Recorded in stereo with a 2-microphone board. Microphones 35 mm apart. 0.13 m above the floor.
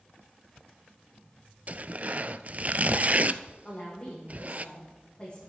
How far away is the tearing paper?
About 0.5 m.